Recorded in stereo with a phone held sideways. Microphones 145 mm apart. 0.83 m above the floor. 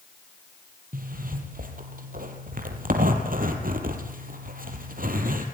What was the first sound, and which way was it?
A zipper, 75° right (ahead or behind).